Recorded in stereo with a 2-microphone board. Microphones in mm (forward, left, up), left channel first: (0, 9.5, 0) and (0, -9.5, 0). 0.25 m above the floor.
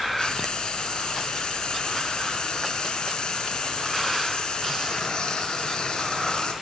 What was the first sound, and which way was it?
Frying, 45° left (ahead or behind).